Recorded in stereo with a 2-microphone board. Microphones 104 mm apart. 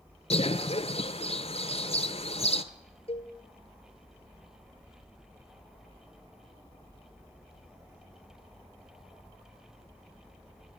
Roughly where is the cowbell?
Left.